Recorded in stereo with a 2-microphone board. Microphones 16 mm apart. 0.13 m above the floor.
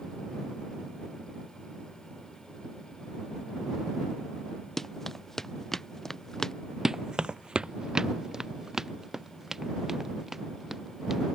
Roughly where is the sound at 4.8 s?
Centre.